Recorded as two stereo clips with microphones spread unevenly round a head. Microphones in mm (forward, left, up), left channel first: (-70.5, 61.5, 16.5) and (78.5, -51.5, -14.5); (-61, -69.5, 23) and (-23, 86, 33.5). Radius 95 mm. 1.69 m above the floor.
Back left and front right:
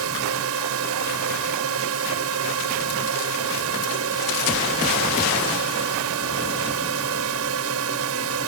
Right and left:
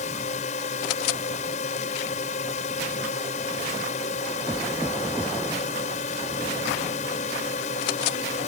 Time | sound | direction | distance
0.0 | a drone | 50° right | ?